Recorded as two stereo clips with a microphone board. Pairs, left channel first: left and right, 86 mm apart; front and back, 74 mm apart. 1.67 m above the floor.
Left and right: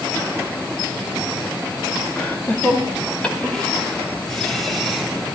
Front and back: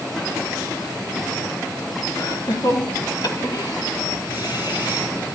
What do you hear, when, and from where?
2.2 s laughter: 25° left, 3 m; by 5.1 s 5° left, 4.5 m